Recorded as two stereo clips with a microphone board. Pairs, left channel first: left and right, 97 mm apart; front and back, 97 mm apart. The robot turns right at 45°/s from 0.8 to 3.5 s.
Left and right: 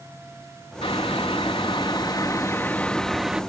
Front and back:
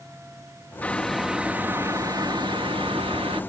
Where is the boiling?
75° left; by 3.4 s 170° right.